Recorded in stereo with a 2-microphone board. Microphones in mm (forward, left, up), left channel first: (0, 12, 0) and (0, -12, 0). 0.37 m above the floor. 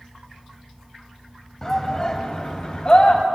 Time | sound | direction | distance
1.6 | a shout | 25° left (ahead or behind) | 2.5 m